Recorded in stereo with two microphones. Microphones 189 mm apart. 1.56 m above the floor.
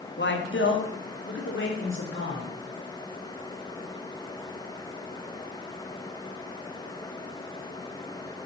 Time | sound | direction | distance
0.2 | a man speaking | 65° left (ahead or behind) | 2.5 m